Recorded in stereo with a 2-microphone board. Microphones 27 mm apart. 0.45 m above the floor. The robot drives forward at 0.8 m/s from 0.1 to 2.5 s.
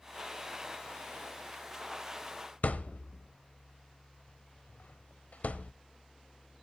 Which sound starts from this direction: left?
A thud, at 2.6 s.